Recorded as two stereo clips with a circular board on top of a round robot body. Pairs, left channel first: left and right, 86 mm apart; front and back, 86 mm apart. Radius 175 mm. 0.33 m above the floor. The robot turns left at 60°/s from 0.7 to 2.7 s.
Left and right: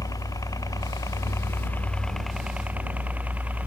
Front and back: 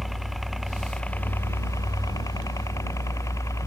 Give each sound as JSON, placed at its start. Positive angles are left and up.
{"t": 0.0, "sound": "a helicopter", "azimuth_deg": 90}